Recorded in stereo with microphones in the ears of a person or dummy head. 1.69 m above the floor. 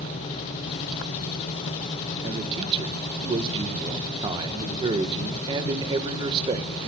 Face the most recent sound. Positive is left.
turn(degrees=-25)  # may be behind; listen again after turning